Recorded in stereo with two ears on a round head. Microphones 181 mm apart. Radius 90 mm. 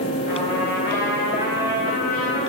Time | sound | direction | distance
0.3 | a trumpet | 50° left (ahead or behind) | 5.5 m